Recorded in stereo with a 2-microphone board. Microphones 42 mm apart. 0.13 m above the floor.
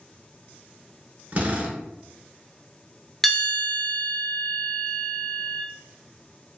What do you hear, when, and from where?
1.3 s a drill: 40° right (ahead or behind), 0.7 m
3.2 s a bell: 5° left (ahead or behind), 0.6 m